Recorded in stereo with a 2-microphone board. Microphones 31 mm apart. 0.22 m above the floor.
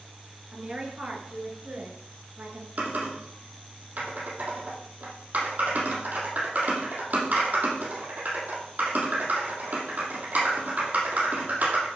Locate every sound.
0.5 s a woman speaking: 30° right (ahead or behind), 3 m; by 2.7 s 60° right (ahead or behind), 3 m
2.8 s typing on a keyboard: 55° right (ahead or behind), 4.5 m